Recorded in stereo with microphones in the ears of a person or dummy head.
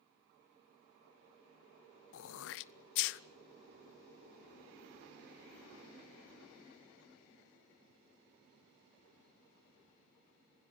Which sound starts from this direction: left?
Throat clearing, at 2.1 s.